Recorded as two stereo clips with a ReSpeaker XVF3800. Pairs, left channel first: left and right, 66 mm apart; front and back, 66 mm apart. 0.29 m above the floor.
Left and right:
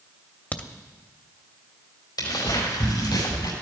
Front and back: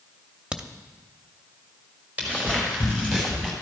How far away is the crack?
About 0.7 m.